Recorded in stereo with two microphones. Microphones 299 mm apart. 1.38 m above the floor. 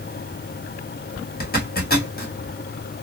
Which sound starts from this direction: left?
A zipper, at 1.4 s.